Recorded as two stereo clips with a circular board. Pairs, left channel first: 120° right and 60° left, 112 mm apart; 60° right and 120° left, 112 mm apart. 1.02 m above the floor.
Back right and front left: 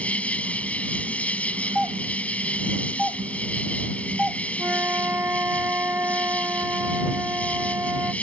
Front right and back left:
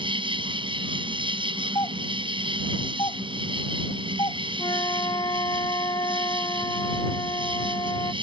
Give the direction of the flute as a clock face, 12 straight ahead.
12 o'clock.